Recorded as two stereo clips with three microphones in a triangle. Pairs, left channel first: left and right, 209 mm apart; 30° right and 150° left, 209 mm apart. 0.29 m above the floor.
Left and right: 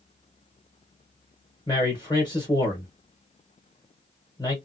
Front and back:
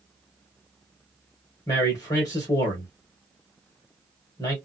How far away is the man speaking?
About 1.1 m.